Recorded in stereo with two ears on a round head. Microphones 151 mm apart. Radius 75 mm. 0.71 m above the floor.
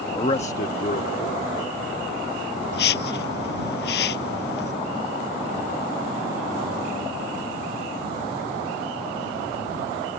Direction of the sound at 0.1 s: 20° left (ahead or behind).